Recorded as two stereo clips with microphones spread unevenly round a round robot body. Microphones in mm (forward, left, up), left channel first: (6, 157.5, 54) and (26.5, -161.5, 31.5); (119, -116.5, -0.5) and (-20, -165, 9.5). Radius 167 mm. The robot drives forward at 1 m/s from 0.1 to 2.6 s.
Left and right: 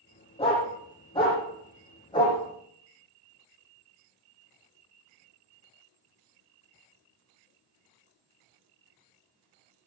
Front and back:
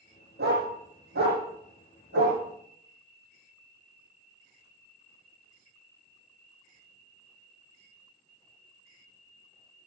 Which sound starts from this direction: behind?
A dog barking, at 0.4 s.